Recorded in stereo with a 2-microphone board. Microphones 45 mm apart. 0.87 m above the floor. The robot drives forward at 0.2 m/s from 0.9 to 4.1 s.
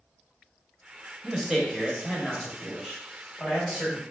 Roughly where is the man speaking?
Centre.